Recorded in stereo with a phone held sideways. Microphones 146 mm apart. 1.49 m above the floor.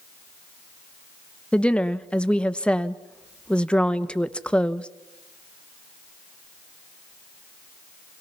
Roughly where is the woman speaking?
Centre.